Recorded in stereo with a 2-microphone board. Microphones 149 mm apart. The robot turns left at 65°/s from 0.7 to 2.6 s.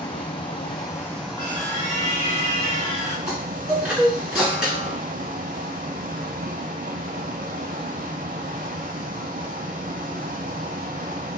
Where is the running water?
40° left, 0.8 m; by 11.4 s 85° right, 0.8 m.